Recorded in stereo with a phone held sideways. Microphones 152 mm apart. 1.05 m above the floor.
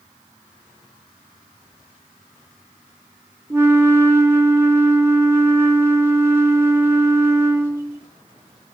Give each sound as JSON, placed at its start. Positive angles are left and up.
{"t": 3.5, "sound": "a flute", "side_deg": -15, "distance_m": 0.6}